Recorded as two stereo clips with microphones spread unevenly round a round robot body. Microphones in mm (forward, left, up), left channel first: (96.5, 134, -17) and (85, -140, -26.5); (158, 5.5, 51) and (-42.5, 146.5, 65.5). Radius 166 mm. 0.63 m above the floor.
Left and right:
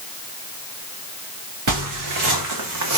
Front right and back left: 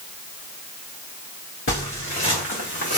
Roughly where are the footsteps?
Right.